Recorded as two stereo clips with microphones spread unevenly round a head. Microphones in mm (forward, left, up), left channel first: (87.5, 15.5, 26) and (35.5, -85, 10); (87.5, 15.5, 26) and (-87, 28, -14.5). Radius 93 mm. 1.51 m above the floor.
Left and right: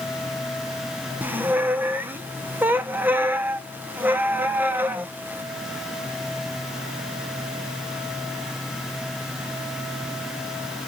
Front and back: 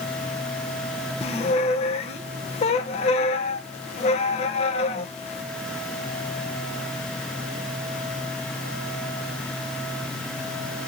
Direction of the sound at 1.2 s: 40° right.